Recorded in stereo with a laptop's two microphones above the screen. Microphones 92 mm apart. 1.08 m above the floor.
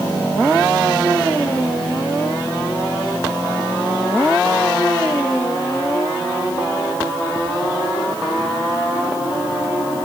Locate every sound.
Only background noise.